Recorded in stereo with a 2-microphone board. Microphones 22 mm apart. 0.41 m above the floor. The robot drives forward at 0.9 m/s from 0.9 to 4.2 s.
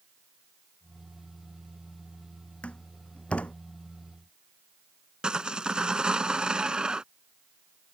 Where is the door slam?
75° left (ahead or behind).